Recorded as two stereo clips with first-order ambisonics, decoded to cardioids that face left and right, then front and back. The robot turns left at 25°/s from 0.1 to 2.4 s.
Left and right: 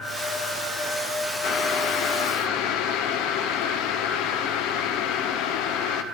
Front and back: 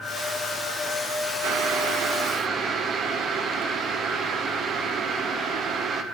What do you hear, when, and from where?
1.4 s boiling: 140° left, 0.8 m; by 6.0 s 115° left, 0.8 m